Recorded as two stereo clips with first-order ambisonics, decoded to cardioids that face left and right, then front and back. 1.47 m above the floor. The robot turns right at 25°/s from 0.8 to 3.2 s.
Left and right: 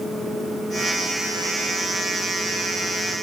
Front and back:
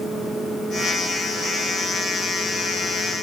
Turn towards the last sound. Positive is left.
No sound to turn to.